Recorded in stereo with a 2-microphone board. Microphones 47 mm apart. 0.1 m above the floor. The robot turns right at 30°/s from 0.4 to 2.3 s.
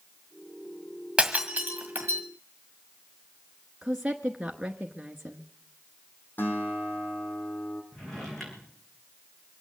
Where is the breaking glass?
20° right (ahead or behind), 1.8 m; by 2.2 s 50° right (ahead or behind), 1.8 m.